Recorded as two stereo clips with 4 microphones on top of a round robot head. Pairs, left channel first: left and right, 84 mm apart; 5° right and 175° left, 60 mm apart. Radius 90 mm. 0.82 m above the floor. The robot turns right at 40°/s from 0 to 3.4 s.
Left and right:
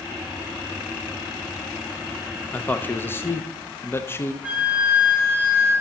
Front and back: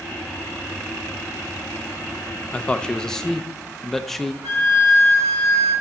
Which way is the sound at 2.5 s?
45° left.